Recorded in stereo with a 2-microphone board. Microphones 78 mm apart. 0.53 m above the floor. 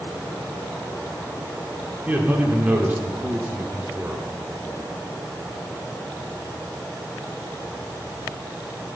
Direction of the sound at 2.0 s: 20° right (ahead or behind).